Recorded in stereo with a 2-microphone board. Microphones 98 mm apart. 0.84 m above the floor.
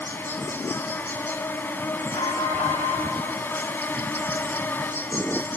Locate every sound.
0.0 s an insect: 20° left (ahead or behind), 0.8 m
2.1 s an alarm: 80° left, 5 m